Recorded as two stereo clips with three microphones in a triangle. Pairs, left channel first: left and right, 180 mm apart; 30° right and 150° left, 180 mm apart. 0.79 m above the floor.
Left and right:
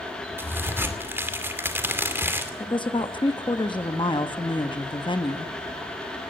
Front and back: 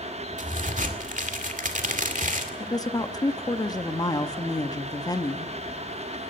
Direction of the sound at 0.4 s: 165° right.